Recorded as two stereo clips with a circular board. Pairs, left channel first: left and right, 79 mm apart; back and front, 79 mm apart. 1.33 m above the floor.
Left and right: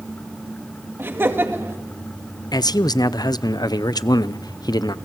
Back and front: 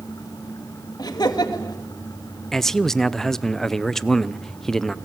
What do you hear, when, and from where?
1.0 s laughter: 150° right, 2.5 m
2.5 s a man speaking: 95° left, 0.6 m